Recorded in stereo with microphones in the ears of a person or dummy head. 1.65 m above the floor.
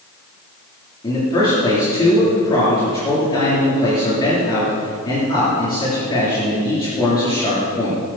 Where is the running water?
No running water in this recording.